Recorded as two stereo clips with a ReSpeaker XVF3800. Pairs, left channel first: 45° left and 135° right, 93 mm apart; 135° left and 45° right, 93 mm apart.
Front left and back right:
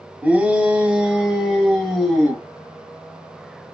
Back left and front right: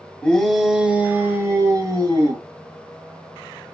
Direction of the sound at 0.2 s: 170° right.